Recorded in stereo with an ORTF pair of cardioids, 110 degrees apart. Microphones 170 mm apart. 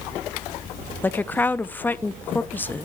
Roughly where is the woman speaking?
Ahead.